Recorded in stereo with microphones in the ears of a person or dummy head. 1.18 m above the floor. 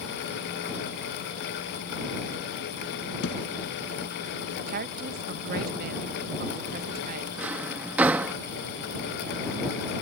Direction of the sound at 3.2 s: 70° left (ahead or behind).